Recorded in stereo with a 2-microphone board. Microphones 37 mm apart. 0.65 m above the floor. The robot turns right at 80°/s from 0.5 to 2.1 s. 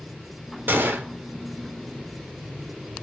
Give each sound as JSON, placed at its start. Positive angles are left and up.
{"t": 0.7, "sound": "a gunshot", "azimuth_deg": -115, "distance_m": 0.8}